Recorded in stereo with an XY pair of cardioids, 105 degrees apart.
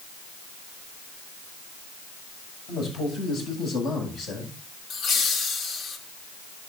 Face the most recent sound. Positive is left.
turn(degrees=65)